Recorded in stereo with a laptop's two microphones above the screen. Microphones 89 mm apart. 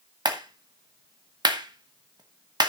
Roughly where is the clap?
Right.